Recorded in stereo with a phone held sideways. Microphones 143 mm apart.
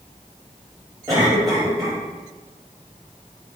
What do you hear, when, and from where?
1.1 s a cough: 25° right (ahead or behind), 3.5 m